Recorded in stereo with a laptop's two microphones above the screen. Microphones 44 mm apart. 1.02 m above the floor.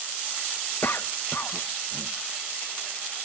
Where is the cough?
55° left (ahead or behind), 0.8 m.